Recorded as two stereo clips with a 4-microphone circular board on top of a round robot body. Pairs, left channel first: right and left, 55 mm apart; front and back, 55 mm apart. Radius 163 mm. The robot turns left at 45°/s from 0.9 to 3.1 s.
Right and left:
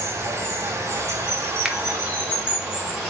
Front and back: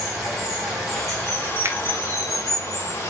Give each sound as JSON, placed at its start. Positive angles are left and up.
{"t": 0.0, "sound": "running water", "azimuth_deg": 90, "distance_m": 3.0}
{"t": 1.6, "sound": "a finger snap", "azimuth_deg": 170, "distance_m": 1.1}